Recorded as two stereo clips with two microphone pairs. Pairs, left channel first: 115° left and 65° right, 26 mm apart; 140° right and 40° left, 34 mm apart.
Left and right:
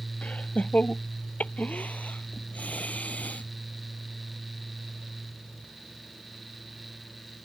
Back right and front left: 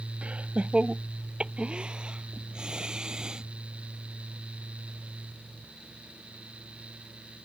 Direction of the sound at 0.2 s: 90° left.